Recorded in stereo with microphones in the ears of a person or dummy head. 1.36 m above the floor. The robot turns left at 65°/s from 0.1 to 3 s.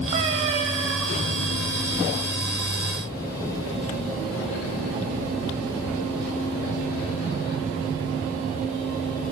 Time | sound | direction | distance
0.1 | a cat meowing | 20° right (ahead or behind) | 0.6 m